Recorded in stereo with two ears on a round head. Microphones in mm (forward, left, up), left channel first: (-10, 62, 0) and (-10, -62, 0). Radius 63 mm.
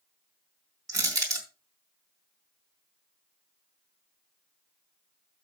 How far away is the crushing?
About 3 m.